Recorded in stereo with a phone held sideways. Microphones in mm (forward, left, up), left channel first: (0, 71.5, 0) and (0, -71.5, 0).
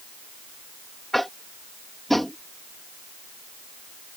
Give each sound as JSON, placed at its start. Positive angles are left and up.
{"t": 1.1, "sound": "tapping", "side_deg": 0}